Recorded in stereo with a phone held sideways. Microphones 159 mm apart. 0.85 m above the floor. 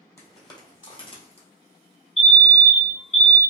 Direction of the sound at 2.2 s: 40° left (ahead or behind).